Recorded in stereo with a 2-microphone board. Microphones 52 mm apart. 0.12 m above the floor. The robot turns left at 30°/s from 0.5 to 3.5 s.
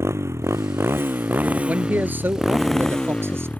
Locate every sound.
0.0 s a motorcycle: 120° right; by 3.6 s 150° left
1.7 s a man speaking: 40° right; by 3.5 s 95° right